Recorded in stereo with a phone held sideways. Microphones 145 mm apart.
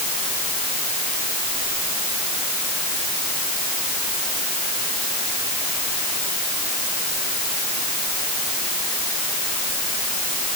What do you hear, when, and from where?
Only background noise.